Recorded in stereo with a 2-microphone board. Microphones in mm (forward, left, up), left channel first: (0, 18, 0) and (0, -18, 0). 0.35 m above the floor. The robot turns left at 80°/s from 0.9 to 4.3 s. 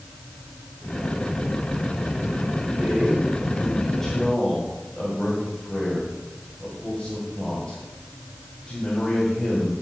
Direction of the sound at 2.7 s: 55° right (ahead or behind).